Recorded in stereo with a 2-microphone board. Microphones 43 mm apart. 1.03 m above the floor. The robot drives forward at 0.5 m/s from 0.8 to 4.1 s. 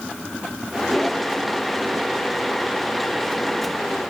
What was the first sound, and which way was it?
Only background noise.